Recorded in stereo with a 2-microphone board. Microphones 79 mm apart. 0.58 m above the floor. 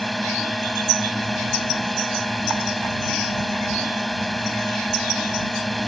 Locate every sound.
0.0 s a drone: centre (ahead or behind)